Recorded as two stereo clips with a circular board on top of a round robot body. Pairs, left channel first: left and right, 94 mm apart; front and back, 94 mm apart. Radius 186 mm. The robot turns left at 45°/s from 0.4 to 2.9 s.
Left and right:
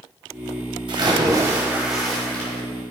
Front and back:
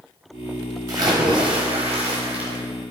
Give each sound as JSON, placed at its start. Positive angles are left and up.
{"t": 0.9, "sound": "a splash", "azimuth_deg": -120, "distance_m": 1.2}